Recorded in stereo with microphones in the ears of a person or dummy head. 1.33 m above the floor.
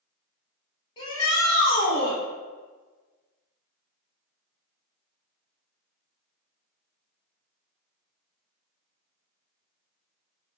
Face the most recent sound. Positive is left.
turn(degrees=30)  # may be behind; listen again after turning